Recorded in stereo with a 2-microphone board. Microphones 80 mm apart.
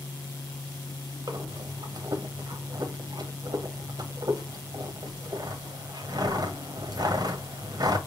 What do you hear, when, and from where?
1.3 s breathing: 50° right (ahead or behind), 0.8 m